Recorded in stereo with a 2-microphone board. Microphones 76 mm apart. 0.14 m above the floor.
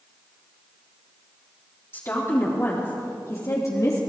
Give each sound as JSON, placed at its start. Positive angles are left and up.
{"t": 1.9, "sound": "a woman speaking", "side_deg": 35, "distance_m": 5.0}